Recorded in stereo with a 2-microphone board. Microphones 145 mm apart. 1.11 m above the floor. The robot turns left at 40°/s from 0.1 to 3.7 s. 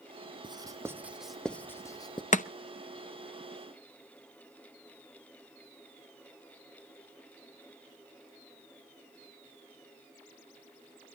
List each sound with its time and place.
0.4 s writing: 30° right (ahead or behind), 0.6 m; by 2.2 s 35° left (ahead or behind), 0.6 m
2.3 s chopping: 60° left (ahead or behind), 0.5 m; by 2.5 s 65° left (ahead or behind), 0.5 m